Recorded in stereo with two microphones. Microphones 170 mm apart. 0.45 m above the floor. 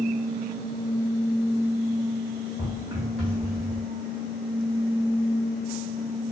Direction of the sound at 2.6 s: 25° right (ahead or behind).